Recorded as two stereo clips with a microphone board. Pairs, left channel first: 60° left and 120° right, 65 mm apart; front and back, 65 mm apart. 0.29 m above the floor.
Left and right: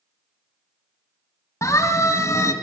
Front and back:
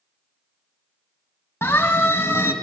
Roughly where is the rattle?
No rattle in this recording.